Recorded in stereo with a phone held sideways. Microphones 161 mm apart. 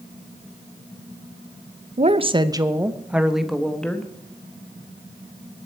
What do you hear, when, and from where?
2.0 s a woman speaking: 45° right (ahead or behind), 0.7 m; by 4.1 s 10° left (ahead or behind), 1.4 m